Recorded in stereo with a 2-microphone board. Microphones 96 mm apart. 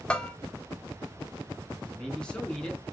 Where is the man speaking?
10° left (ahead or behind), 5 m.